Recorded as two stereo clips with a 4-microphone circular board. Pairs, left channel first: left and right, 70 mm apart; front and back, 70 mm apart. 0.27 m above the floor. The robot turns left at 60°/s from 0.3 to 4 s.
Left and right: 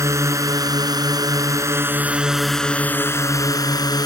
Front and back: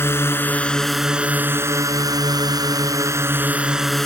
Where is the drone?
50° right; by 4.1 s 85° left.